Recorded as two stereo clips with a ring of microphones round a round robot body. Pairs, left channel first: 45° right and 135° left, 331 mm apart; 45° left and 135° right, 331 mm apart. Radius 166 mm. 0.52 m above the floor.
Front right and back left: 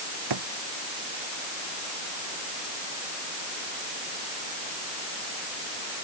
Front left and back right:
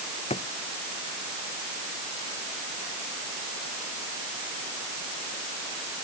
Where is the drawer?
115° left.